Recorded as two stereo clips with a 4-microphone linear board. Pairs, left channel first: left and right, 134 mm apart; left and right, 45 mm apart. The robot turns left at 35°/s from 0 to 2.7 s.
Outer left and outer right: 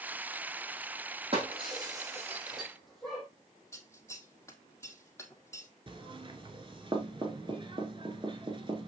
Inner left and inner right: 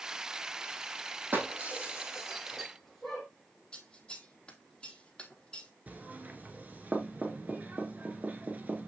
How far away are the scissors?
About 1.2 m.